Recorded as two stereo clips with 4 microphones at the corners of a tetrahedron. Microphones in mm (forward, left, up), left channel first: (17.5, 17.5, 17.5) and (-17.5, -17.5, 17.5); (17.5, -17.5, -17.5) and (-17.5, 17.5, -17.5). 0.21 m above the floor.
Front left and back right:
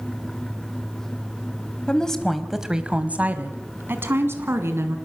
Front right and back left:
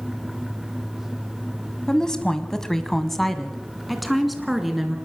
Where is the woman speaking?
5° left, 1.4 m; by 5.0 s 140° right, 3 m.